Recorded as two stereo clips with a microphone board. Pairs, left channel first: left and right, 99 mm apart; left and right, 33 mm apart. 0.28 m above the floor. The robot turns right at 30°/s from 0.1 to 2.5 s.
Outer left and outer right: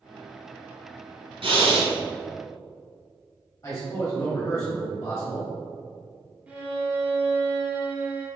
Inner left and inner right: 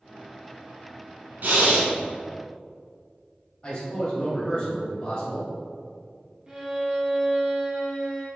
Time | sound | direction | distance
1.4 | breathing | 65° right (ahead or behind) | 1.1 m
3.6 | a man speaking | 30° left (ahead or behind) | 1.3 m
6.5 | a violin | 15° right (ahead or behind) | 1.0 m